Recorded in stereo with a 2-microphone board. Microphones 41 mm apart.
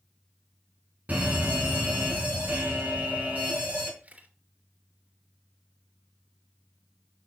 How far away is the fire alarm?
About 4 m.